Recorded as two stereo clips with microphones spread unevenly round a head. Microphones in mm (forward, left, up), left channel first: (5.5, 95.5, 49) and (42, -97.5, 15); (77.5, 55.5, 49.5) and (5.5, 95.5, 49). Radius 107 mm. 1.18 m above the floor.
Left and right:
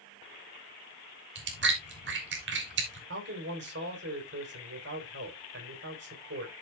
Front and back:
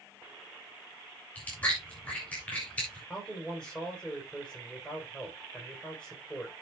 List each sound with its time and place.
1.4 s chewing: 110° right, 3 m
3.1 s a man speaking: 115° right, 4 m